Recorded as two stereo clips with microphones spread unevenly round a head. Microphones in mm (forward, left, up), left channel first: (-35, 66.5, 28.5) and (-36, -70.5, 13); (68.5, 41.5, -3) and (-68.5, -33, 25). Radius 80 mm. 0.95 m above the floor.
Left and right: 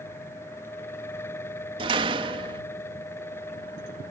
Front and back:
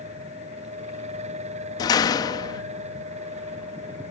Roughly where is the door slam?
Ahead right.